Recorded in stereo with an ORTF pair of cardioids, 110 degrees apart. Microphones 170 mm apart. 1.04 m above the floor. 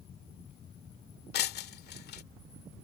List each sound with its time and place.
1.3 s breaking glass: 65° left